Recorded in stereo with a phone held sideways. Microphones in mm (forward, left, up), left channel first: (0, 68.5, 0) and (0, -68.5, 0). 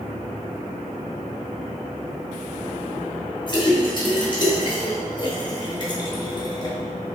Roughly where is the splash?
Left.